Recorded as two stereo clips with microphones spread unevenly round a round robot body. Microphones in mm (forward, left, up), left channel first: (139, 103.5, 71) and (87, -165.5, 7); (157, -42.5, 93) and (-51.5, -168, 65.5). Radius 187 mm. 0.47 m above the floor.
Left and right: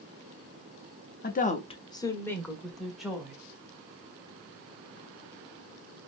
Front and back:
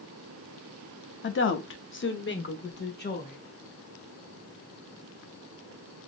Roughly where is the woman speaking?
Ahead.